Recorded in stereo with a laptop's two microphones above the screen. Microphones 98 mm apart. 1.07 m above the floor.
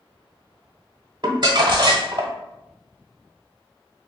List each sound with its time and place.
1.2 s crumpling: 45° right (ahead or behind), 1.0 m